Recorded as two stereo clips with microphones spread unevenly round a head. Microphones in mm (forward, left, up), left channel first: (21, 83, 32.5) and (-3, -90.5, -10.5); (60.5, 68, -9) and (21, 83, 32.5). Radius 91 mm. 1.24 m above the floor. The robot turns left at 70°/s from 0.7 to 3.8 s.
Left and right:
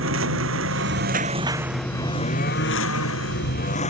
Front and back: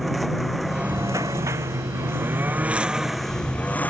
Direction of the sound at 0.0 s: 115° right.